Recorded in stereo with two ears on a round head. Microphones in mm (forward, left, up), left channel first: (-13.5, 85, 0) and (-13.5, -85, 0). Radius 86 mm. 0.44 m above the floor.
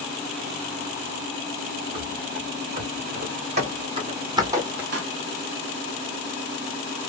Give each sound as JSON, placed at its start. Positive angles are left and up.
{"t": 1.9, "sound": "running footsteps", "side_deg": -50, "distance_m": 2.0}
{"t": 4.9, "sound": "a pop", "side_deg": -55, "distance_m": 1.0}